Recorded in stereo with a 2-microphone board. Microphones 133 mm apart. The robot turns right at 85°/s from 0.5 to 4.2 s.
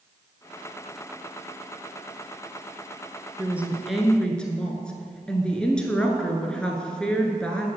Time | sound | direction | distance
3.4 | a woman speaking | 15° right (ahead or behind) | 1.1 m